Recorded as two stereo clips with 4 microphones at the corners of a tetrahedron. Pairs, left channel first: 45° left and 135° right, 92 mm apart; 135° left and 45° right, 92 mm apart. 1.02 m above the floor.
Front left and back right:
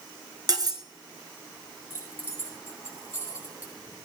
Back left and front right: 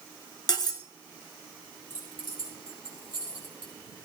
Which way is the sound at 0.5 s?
Straight behind.